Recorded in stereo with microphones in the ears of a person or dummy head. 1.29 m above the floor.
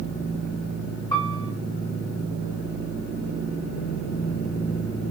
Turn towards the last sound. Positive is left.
turn(degrees=25)  # may be behind; listen again after turning